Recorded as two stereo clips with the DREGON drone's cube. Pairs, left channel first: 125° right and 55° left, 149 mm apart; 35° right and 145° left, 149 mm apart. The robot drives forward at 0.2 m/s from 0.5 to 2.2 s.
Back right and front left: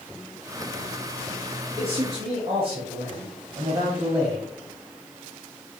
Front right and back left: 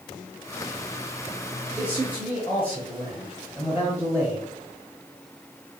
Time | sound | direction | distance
1.8 | a man speaking | 70° left | 1.2 m